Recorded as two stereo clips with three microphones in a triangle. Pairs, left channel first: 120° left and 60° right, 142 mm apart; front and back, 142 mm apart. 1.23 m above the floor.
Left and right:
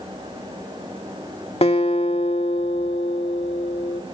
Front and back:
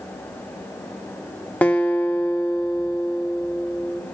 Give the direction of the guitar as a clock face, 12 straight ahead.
9 o'clock.